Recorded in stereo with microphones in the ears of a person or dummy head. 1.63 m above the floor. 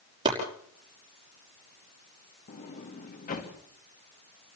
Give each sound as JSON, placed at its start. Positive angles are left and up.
{"t": 0.2, "sound": "chopping", "side_deg": -25, "distance_m": 5.5}
{"t": 2.5, "sound": "a sliding door", "side_deg": 45, "distance_m": 2.0}